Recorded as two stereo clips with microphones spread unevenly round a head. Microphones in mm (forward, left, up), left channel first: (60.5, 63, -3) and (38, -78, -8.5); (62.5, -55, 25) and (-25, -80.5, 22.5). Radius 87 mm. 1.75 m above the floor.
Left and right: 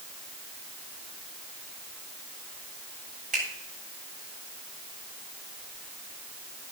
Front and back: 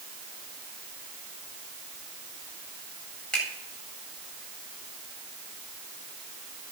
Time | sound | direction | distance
3.3 | a finger snap | 65° right | 8.5 m